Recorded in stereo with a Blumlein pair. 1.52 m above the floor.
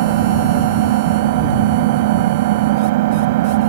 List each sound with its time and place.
0.0 s an engine running: 50° right